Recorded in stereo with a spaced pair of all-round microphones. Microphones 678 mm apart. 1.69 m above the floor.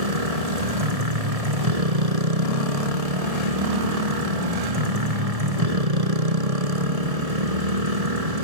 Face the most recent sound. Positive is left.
turn(degrees=-60)  # may be behind; listen again after turning